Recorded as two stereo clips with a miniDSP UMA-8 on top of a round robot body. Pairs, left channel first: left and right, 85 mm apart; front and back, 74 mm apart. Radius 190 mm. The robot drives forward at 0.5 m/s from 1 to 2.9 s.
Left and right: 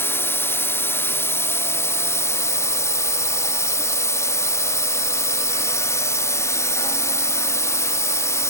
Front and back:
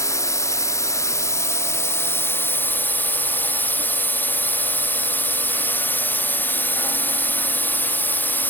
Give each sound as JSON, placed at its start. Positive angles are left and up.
{"t": 0.0, "sound": "a drone", "azimuth_deg": 35}